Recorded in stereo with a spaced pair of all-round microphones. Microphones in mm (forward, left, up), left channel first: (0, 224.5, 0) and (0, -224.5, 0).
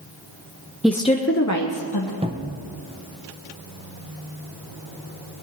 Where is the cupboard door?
15° right (ahead or behind), 0.8 m.